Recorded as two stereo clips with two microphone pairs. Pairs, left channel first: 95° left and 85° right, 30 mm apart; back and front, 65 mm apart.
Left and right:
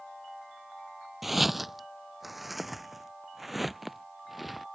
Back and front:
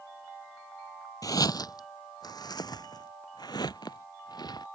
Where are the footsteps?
170° right.